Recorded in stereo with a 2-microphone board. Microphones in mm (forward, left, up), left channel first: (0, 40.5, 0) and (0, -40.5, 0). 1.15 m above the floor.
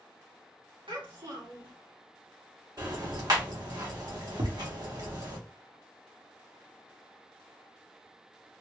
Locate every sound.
0.9 s a child speaking: 80° right, 1.6 m
2.8 s ticking: 55° right (ahead or behind), 1.6 m
4.4 s tapping: 70° right (ahead or behind), 0.9 m